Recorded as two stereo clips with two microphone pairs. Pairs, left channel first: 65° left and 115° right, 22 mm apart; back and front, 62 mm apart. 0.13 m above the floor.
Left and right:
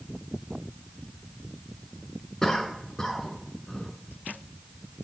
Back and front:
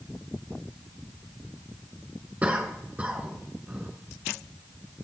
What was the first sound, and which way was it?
A cough, 35° left.